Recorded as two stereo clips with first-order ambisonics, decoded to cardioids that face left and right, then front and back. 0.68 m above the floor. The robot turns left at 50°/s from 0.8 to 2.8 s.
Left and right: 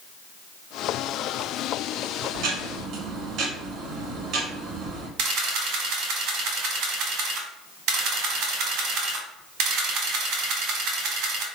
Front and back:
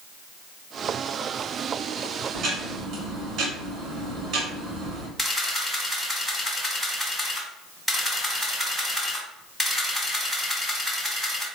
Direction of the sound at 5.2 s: 95° right.